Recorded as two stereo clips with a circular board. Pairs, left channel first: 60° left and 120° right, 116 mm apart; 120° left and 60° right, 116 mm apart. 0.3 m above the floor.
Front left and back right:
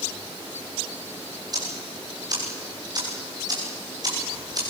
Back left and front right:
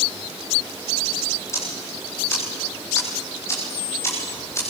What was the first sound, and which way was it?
Ticking, 175° right.